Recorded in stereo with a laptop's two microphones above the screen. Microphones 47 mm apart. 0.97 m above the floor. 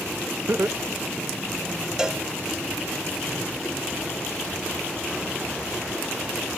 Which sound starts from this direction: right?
Laughter, at 0.5 s.